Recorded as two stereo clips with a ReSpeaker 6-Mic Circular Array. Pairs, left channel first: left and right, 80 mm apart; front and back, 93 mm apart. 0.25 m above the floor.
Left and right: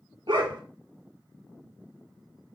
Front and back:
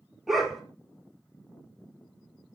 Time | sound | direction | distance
0.3 | a dog barking | 90° right | 1.2 m